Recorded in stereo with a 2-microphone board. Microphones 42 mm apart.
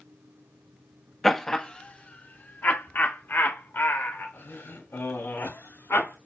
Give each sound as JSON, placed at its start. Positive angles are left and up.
{"t": 1.2, "sound": "laughter", "side_deg": 5, "distance_m": 0.8}